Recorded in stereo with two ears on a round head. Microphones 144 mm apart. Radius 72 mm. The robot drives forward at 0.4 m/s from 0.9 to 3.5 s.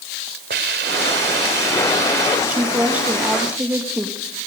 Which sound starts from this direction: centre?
A woman speaking, at 2.5 s.